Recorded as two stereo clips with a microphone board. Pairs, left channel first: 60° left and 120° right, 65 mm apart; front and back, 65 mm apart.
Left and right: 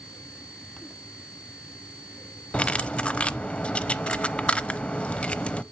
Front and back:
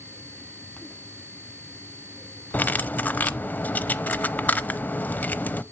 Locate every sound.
2.5 s cutlery clinking: 10° left, 0.6 m